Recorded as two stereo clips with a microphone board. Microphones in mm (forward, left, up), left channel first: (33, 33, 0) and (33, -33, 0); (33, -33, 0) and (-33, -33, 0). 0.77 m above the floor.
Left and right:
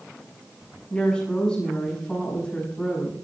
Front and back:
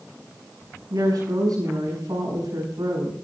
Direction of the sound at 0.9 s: 165° left.